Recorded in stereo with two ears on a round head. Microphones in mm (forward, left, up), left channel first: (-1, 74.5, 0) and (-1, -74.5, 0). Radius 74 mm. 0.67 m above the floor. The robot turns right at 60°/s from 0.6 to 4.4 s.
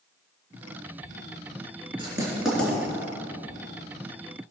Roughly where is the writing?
Right.